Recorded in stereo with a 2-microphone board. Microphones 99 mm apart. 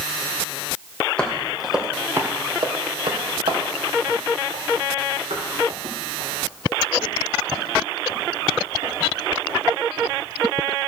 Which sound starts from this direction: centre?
Footsteps, at 1.2 s.